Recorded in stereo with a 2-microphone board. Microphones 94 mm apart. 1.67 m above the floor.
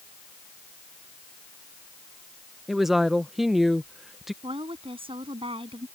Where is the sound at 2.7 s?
5° right (ahead or behind).